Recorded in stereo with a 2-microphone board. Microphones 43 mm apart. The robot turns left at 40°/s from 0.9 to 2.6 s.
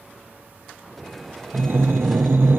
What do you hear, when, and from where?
1.5 s breathing: 75° right, 1.2 m; by 2.6 s 120° right, 1.2 m